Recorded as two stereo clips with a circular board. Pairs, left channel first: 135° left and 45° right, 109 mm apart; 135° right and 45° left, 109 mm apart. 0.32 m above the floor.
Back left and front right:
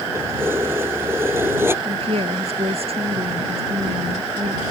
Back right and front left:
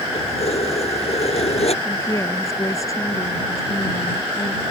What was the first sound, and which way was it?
Keys jangling, 115° right.